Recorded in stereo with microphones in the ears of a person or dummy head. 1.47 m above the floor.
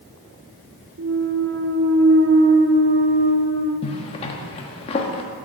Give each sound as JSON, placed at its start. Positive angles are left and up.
{"t": 1.0, "sound": "a clunk", "side_deg": -55, "distance_m": 1.3}
{"t": 3.8, "sound": "a zipper", "side_deg": 30, "distance_m": 1.4}